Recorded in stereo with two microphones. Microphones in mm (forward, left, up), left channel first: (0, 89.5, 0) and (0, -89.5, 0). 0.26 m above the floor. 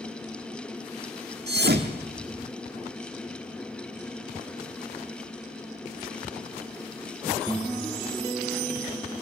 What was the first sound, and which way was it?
A thud, 70° right (ahead or behind).